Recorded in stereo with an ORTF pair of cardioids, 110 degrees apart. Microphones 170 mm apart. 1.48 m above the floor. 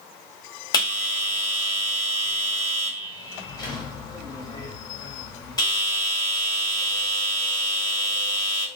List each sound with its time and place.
0.7 s a bell: 25° left, 1.4 m